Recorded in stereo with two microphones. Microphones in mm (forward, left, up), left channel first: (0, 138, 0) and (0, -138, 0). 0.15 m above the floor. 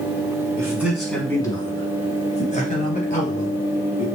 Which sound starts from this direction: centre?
A man speaking, at 0.6 s.